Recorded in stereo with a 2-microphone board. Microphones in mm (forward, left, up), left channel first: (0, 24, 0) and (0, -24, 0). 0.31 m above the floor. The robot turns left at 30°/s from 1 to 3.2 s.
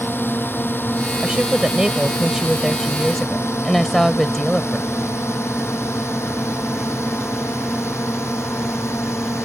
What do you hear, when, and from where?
0.0 s a drone: 55° left (ahead or behind); by 9.4 s 75° left (ahead or behind)
1.2 s a woman speaking: 130° right; by 4.9 s 170° left